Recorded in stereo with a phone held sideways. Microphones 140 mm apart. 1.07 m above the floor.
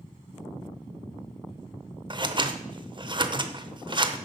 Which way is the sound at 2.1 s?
35° right (ahead or behind).